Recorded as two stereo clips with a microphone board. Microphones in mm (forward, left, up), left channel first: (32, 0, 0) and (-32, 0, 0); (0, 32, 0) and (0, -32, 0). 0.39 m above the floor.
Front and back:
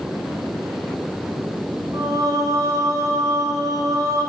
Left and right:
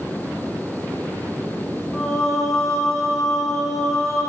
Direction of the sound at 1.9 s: Straight behind.